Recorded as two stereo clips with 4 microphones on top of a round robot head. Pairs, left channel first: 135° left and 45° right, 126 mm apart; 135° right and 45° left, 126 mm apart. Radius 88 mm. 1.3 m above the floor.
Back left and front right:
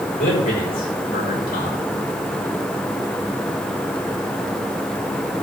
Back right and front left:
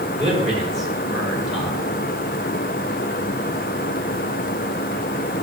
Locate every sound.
0.2 s a man speaking: 135° left, 6.5 m